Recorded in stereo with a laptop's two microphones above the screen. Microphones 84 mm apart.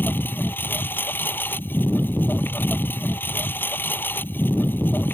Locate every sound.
0.0 s a lawn mower: 25° left (ahead or behind)